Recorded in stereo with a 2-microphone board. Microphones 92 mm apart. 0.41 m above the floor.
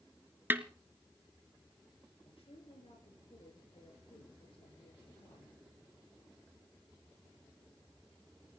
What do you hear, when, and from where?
0.5 s a snare drum: 25° right (ahead or behind), 0.9 m
2.2 s a woman speaking: 80° left, 6.5 m